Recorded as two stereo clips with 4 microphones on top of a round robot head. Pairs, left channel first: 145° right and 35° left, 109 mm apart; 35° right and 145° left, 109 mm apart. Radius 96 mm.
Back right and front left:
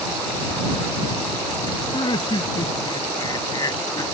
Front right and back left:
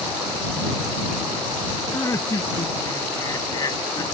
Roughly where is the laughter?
Right.